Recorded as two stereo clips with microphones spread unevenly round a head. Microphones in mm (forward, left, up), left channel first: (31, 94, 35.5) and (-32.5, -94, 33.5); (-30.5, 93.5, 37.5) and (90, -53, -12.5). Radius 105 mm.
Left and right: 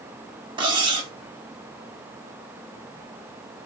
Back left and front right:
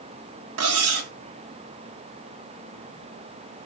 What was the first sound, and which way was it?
Cutlery clinking, 40° right.